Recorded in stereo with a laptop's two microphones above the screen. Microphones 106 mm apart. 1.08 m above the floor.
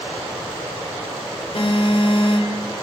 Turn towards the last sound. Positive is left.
turn(degrees=65)  # may be behind; listen again after turning